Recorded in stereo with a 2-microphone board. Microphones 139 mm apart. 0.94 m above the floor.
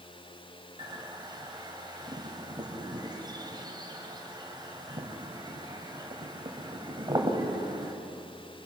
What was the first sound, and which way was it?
A bird, 30° right (ahead or behind).